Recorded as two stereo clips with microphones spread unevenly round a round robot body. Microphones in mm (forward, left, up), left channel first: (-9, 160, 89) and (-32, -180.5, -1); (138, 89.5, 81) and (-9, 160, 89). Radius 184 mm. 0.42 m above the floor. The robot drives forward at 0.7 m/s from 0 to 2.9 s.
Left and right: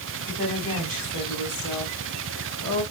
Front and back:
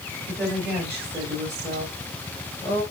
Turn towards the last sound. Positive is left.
turn(degrees=-140)